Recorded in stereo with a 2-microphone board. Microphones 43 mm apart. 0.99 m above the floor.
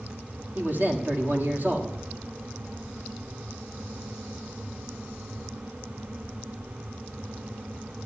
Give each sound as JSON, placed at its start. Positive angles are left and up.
{"t": 0.6, "sound": "a man speaking", "side_deg": -45, "distance_m": 1.9}